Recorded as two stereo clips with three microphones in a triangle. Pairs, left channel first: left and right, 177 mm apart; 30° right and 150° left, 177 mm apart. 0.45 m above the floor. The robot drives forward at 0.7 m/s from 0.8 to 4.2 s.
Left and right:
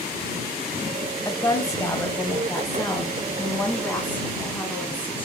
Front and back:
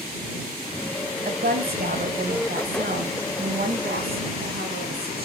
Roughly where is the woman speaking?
Behind left.